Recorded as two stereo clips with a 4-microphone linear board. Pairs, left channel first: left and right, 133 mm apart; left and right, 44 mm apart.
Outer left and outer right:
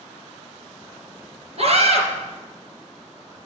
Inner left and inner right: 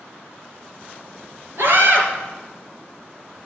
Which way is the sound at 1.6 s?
55° right (ahead or behind).